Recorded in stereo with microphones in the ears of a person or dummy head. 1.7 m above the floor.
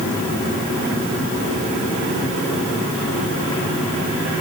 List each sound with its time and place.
Only background noise.